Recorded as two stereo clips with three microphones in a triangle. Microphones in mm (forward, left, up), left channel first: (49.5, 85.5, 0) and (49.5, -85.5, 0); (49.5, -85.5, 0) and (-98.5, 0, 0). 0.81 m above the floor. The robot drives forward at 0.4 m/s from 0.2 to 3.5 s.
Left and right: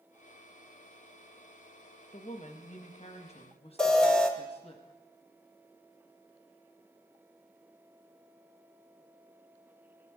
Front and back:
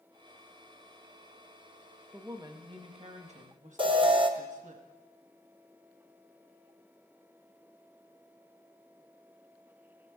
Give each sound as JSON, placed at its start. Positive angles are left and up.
{"t": 2.1, "sound": "a woman speaking", "azimuth_deg": 85, "distance_m": 0.9}
{"t": 3.8, "sound": "an alarm", "azimuth_deg": 170, "distance_m": 0.9}